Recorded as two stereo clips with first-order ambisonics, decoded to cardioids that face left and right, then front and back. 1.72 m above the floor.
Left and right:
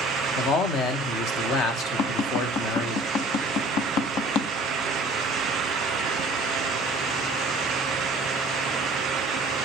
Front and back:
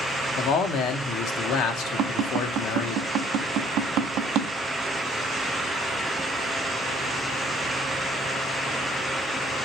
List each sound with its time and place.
0.4 s a man speaking: 45° left, 1.3 m
2.0 s tapping: 135° left, 0.9 m